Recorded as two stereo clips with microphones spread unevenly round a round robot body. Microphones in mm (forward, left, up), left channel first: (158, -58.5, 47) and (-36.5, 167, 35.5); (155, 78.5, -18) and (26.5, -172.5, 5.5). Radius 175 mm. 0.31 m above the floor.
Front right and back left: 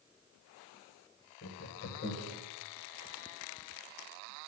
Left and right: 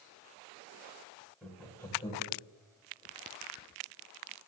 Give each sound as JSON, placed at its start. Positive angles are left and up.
{"t": 1.4, "sound": "laughter", "azimuth_deg": -25, "distance_m": 2.0}